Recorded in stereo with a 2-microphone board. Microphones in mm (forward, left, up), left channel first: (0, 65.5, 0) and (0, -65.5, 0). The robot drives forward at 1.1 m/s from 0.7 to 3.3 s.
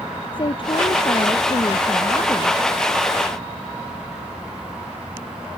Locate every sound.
0.3 s a woman speaking: 45° left (ahead or behind); by 2.6 s 35° left (ahead or behind)